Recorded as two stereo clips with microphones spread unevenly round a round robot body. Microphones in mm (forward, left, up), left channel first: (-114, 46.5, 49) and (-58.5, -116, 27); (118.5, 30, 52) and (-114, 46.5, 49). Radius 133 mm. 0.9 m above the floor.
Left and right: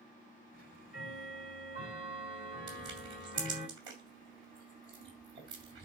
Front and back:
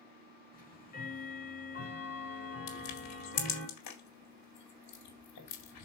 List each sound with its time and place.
0.5 s ticking: 50° left, 5.5 m
2.7 s crushing: straight ahead, 4 m